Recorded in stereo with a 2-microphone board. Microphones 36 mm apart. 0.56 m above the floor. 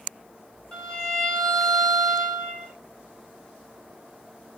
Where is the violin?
20° left (ahead or behind), 1.9 m.